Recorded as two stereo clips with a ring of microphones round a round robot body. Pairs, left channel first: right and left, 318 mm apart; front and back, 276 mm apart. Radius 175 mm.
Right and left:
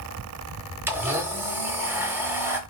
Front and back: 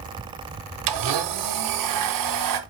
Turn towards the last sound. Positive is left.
turn(degrees=175)